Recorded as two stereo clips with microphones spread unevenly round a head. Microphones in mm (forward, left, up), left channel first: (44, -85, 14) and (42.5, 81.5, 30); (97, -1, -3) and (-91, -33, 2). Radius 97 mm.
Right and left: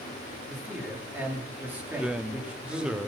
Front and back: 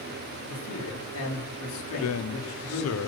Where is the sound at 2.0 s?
5° left, 0.8 m.